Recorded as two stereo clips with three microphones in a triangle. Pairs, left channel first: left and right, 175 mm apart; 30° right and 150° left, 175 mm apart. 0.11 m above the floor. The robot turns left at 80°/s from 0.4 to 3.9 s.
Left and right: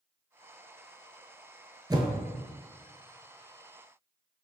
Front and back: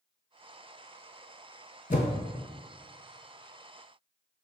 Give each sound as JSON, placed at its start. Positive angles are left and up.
{"t": 1.9, "sound": "a whoosh", "azimuth_deg": -30, "distance_m": 0.6}